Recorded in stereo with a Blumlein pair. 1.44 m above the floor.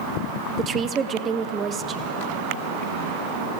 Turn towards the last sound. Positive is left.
turn(degrees=-25)